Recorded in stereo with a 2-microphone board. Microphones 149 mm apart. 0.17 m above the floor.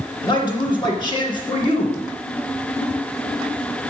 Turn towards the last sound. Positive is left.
turn(degrees=30)  # may be behind; listen again after turning